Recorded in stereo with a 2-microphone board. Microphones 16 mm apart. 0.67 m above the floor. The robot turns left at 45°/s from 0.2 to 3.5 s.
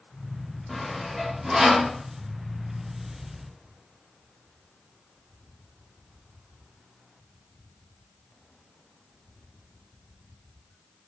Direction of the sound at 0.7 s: 10° left (ahead or behind).